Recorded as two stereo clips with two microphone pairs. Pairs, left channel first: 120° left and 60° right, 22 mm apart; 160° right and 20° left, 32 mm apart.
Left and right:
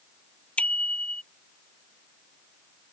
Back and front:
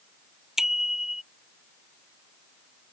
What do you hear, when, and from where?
0.6 s a bicycle bell: 95° left